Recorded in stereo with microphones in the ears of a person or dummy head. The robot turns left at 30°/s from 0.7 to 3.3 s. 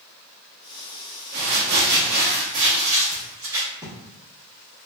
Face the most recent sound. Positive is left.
turn(degrees=-160)